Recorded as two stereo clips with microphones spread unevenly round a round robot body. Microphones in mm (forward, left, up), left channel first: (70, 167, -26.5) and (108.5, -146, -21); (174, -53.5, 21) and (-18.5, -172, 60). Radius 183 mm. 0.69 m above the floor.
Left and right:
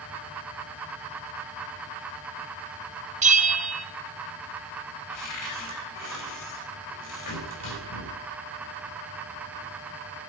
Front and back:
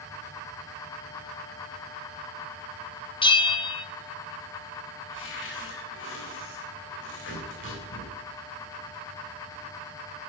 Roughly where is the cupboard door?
Left.